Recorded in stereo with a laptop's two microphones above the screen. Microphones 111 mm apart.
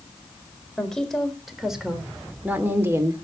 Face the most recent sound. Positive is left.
turn(degrees=-30)  # may be behind; listen again after turning